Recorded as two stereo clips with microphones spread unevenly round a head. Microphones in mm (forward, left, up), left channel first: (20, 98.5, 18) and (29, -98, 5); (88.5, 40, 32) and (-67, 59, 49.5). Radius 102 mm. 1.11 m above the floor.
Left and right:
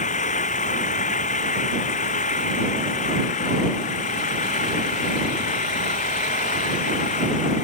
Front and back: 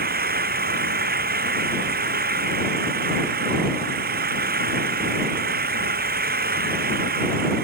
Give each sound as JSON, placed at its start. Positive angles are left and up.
{"t": 0.0, "sound": "an engine running", "azimuth_deg": 150}